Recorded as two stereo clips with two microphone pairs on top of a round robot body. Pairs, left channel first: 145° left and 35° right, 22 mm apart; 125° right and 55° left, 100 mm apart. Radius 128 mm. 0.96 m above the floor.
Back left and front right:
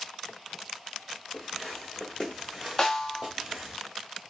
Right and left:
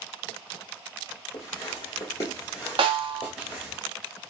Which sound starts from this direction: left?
A snare drum, at 2.8 s.